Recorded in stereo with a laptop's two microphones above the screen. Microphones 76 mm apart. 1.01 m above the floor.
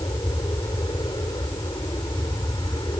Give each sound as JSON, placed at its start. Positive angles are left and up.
{"t": 0.0, "sound": "an aircraft", "side_deg": 70}